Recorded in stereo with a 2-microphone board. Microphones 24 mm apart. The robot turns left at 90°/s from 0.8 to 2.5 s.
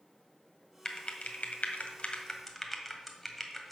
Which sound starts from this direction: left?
Typing on a keyboard, at 0.8 s.